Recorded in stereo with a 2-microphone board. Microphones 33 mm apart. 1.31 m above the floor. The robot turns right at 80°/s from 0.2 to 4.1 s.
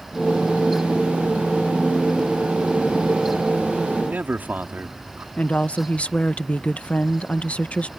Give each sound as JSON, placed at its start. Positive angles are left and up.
{"t": 4.0, "sound": "a man speaking", "side_deg": -65}
{"t": 5.4, "sound": "a woman speaking", "side_deg": 45}